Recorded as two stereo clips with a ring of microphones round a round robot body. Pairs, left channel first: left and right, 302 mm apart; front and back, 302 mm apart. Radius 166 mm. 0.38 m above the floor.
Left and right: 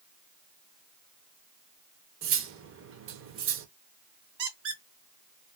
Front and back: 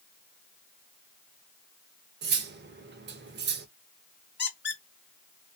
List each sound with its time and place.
2.2 s cutlery clinking: 130° right, 0.6 m
4.4 s a squeak: 55° right, 1.3 m